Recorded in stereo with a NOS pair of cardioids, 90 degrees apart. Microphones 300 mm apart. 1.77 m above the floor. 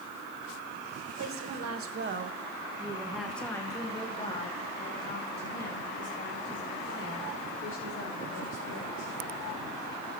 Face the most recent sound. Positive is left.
turn(degrees=45)